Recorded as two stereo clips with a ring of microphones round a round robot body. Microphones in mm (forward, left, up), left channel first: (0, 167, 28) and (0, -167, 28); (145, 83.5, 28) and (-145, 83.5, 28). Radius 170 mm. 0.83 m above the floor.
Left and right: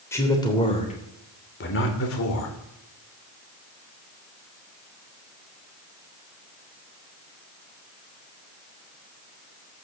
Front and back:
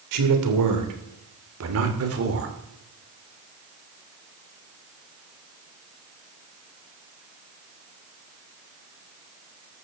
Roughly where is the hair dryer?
No hair dryer in this recording.